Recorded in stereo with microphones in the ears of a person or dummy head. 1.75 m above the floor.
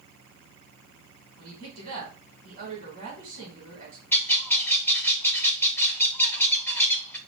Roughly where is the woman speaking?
Right.